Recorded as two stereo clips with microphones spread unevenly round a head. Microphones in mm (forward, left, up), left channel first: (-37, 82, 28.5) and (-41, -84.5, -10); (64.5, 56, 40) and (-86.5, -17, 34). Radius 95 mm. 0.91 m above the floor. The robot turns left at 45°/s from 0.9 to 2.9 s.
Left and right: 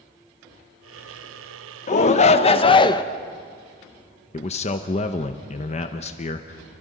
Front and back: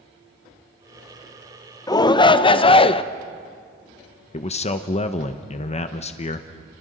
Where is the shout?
70° left, 0.8 m; by 3.0 s 25° left, 0.8 m.